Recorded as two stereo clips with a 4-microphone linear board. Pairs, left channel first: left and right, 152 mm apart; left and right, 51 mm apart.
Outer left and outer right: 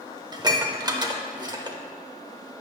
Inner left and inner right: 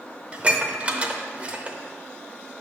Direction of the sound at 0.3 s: 25° right (ahead or behind).